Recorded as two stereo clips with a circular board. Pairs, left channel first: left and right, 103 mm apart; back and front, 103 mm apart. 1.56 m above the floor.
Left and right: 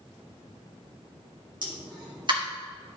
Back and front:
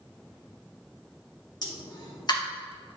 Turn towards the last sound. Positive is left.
turn(degrees=-130)